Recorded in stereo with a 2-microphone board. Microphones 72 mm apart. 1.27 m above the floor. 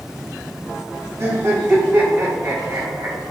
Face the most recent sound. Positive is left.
turn(degrees=-40)  # may be behind; listen again after turning